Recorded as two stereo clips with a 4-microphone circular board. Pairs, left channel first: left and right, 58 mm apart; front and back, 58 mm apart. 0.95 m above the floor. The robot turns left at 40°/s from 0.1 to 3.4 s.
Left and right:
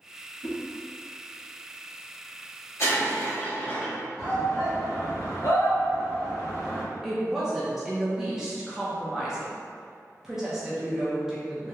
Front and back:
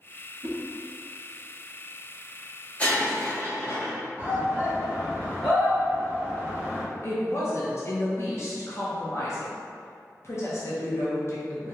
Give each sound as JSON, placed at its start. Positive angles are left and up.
{"t": 0.4, "sound": "a whoosh", "azimuth_deg": 125, "distance_m": 0.6}
{"t": 2.8, "sound": "breaking glass", "azimuth_deg": 65, "distance_m": 1.0}
{"t": 4.2, "sound": "a shout", "azimuth_deg": 60, "distance_m": 2.0}
{"t": 7.0, "sound": "a woman speaking", "azimuth_deg": -10, "distance_m": 0.6}